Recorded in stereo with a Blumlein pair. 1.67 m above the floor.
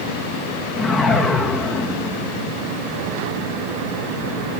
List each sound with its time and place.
0.8 s a whoosh: 10° left, 2.5 m